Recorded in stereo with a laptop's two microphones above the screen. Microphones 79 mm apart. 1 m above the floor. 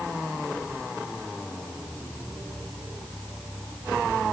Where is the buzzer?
No buzzer in this recording.